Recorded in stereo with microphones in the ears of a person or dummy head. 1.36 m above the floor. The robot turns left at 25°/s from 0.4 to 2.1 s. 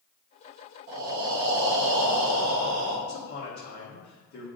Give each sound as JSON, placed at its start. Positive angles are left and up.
{"t": 0.9, "sound": "breathing", "azimuth_deg": -50, "distance_m": 0.8}
{"t": 3.1, "sound": "a man speaking", "side_deg": 50, "distance_m": 1.5}